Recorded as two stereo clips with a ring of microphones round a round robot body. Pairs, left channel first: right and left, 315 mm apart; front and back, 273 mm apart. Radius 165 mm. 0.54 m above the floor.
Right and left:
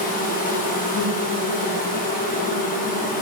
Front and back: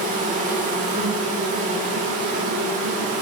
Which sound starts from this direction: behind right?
An insect, at 0.0 s.